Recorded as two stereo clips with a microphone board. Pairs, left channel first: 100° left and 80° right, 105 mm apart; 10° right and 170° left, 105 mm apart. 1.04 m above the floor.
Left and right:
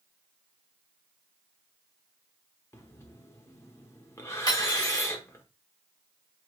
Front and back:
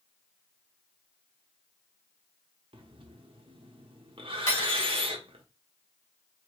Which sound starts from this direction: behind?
Breathing, at 2.7 s.